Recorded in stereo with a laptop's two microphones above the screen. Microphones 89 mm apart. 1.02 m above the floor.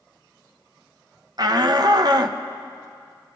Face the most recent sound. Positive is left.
turn(degrees=-50)  # may be behind; listen again after turning